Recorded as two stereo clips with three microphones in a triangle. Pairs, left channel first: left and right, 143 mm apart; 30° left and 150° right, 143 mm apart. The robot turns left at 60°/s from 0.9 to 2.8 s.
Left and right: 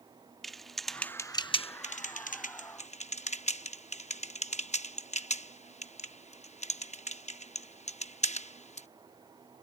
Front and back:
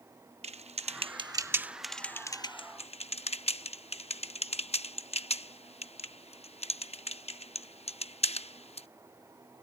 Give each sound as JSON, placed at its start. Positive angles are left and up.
{"t": 0.4, "sound": "typing on a keyboard", "azimuth_deg": 180}